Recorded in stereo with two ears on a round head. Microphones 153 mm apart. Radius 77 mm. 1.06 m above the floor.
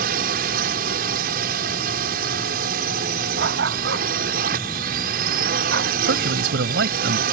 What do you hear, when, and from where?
0.0 s a drone: 60° right (ahead or behind)
3.4 s a dog barking: 75° right (ahead or behind)
6.1 s a man speaking: 75° right (ahead or behind)